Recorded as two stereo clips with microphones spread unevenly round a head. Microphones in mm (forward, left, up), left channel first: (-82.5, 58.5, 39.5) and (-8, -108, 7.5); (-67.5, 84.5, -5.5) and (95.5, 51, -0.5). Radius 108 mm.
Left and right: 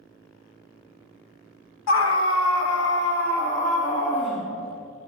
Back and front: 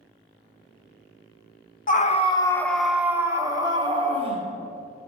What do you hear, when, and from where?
1.9 s a scream: 130° left, 1.0 m; by 4.5 s 45° left, 2.5 m